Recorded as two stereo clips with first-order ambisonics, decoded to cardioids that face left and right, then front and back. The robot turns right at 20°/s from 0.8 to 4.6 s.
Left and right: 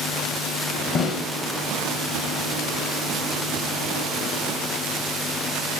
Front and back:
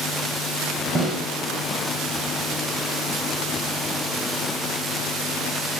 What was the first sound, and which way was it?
A snare drum, 130° left.